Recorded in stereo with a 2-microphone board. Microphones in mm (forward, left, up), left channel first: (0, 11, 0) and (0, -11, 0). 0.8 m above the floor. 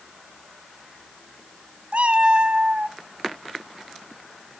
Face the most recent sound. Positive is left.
turn(degrees=-45)  # may be behind; listen again after turning